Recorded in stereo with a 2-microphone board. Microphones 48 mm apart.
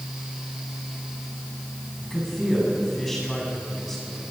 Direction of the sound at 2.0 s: 5° left (ahead or behind).